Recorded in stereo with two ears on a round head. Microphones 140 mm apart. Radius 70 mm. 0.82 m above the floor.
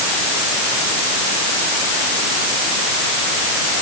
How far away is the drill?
I don't hear a drill.